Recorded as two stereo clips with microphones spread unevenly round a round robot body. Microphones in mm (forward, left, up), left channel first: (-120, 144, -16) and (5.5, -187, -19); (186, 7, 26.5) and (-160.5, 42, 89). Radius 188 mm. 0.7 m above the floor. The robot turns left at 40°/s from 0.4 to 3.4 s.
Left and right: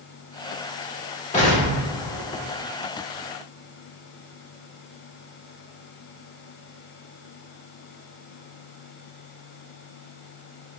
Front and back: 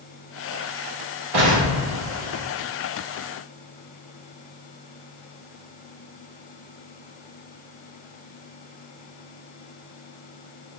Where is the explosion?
Straight behind, 1.3 m; by 2.5 s 135° left, 1.3 m.